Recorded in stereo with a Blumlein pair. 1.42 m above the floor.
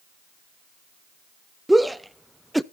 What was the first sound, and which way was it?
A shout, 5° right.